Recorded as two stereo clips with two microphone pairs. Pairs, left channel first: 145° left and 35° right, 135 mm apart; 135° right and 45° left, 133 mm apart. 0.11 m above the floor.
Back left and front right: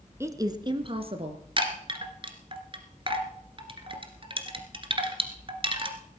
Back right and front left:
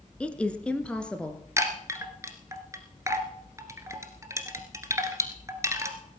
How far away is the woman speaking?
About 1.1 m.